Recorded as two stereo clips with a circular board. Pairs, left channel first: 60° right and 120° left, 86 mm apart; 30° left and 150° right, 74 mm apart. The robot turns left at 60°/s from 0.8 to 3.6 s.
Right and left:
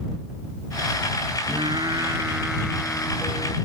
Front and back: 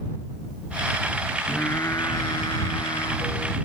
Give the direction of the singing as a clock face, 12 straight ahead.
9 o'clock.